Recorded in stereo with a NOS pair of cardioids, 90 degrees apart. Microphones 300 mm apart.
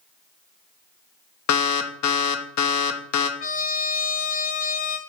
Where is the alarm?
70° left, 0.9 m.